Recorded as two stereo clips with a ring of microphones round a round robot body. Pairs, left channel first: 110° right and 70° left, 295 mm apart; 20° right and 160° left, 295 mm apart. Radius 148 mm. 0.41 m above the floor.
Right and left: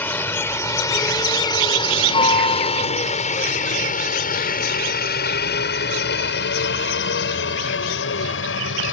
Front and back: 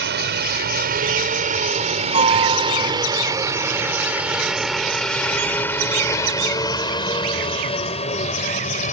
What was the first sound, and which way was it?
A helicopter, 170° left.